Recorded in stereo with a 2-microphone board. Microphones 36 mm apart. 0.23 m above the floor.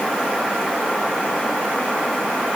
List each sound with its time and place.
Only background noise.